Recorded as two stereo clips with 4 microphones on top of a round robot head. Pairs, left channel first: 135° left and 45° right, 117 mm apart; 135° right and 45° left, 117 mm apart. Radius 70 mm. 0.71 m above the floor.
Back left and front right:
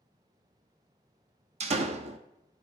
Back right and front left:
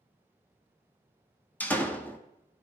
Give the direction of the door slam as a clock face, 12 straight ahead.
2 o'clock.